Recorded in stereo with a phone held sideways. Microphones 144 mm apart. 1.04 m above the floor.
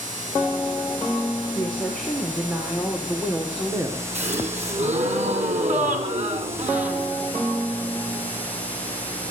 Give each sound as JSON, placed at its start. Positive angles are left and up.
{"t": 1.6, "sound": "a woman speaking", "side_deg": 10, "distance_m": 4.5}
{"t": 4.2, "sound": "a gasp", "side_deg": -55, "distance_m": 3.5}